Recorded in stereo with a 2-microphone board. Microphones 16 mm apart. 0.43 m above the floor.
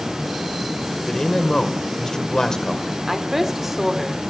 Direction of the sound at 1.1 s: 40° left (ahead or behind).